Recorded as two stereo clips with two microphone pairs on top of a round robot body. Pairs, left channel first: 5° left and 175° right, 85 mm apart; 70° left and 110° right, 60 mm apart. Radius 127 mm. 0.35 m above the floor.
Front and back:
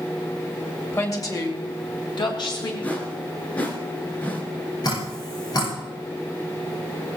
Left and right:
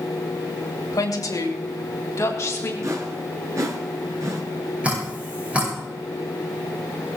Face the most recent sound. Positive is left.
turn(degrees=-40)